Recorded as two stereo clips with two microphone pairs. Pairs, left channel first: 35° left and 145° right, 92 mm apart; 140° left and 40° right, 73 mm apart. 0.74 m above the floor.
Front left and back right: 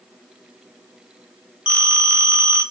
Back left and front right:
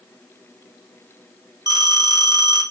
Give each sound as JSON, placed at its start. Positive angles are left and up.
{"t": 1.7, "sound": "a phone ringing", "azimuth_deg": -65, "distance_m": 1.1}